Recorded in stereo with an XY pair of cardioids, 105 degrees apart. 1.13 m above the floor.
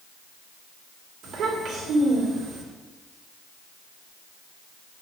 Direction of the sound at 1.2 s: 70° right.